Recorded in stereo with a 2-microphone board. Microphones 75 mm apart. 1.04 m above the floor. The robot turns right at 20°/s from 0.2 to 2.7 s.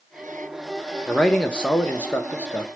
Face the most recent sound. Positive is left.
turn(degrees=40)